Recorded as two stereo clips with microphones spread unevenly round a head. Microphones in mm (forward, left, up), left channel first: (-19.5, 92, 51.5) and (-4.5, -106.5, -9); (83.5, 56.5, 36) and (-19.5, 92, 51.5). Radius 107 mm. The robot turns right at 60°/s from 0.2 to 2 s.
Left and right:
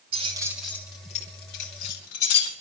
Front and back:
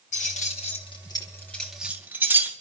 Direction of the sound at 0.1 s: 20° right.